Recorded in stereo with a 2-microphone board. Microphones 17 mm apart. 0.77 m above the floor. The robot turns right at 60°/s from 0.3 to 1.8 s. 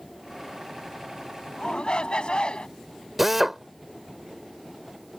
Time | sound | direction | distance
1.6 | a shout | 65° left (ahead or behind) | ?
3.2 | a drill | 10° right (ahead or behind) | ?